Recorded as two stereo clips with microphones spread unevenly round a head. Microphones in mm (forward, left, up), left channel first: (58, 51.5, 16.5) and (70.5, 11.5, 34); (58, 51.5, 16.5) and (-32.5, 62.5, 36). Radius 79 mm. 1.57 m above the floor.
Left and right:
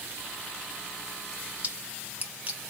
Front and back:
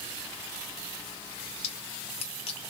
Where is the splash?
15° right, 1.2 m.